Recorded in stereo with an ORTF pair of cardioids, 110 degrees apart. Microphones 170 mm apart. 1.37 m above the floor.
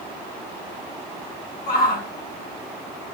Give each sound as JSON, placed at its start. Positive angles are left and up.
{"t": 1.7, "sound": "a shout", "azimuth_deg": 60, "distance_m": 4.0}